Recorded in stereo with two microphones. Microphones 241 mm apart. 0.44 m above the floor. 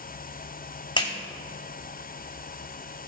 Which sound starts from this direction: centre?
A clap, at 1.0 s.